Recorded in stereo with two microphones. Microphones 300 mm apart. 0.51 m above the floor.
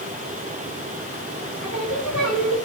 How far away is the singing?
About 6 m.